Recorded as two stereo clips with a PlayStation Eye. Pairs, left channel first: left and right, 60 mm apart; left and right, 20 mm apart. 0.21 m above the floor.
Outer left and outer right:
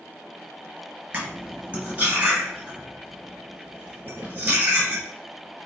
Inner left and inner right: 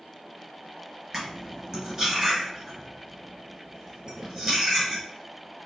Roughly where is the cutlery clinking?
Right.